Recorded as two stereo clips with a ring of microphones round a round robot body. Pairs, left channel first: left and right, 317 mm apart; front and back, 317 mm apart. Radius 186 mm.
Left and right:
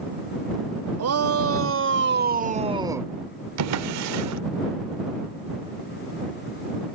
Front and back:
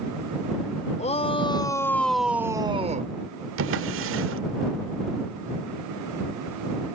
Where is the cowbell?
I don't hear a cowbell.